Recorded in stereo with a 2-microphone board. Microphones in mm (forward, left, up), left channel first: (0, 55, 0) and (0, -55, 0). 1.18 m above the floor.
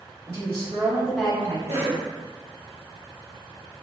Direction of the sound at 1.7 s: 75° right (ahead or behind).